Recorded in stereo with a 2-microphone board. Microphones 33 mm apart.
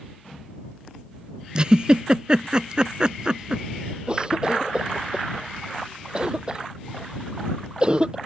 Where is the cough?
30° right (ahead or behind).